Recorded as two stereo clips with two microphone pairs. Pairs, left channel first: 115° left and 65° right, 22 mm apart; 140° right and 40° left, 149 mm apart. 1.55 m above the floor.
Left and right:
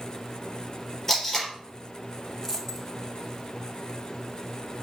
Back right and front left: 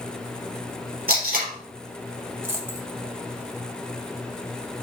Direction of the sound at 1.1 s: 45° left.